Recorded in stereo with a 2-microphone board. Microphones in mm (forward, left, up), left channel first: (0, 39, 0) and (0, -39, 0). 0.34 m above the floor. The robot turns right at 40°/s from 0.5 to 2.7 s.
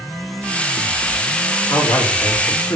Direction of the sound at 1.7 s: 70° left.